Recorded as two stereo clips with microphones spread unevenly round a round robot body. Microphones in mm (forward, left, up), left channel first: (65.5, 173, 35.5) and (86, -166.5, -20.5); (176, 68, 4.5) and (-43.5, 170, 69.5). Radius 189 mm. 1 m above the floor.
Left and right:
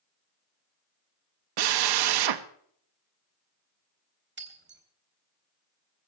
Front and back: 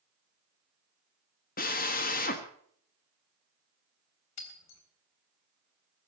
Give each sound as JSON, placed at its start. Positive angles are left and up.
{"t": 1.6, "sound": "a drill", "azimuth_deg": -85, "distance_m": 1.2}
{"t": 4.4, "sound": "breaking glass", "azimuth_deg": -25, "distance_m": 3.5}